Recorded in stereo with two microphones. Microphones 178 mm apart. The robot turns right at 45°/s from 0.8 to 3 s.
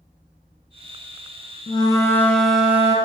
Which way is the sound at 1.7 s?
145° left.